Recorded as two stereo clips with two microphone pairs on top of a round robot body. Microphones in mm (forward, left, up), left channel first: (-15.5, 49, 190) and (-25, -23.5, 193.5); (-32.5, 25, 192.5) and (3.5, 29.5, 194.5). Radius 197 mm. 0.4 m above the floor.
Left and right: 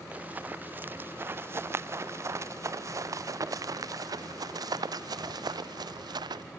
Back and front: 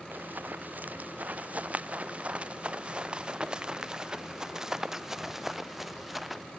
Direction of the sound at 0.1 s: 30° right.